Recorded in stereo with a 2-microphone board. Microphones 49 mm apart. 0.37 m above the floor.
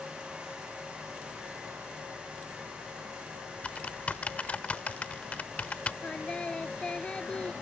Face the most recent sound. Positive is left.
turn(degrees=20)  # may be behind; listen again after turning